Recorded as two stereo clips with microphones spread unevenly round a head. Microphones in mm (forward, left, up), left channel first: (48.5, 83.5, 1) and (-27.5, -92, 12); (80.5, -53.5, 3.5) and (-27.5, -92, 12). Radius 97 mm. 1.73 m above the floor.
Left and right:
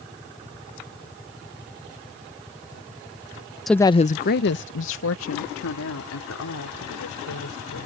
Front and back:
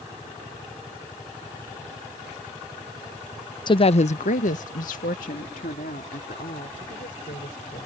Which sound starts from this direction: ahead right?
A woman speaking, at 3.7 s.